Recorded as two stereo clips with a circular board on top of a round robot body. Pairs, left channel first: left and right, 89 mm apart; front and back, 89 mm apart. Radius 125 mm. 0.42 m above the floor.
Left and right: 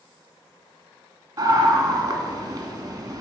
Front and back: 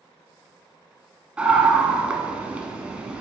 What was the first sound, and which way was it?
A scream, 120° right.